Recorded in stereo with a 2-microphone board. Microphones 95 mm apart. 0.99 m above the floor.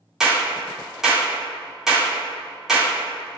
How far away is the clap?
About 1.9 m.